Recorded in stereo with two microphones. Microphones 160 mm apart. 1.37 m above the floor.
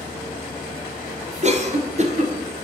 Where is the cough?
45° right (ahead or behind), 0.7 m.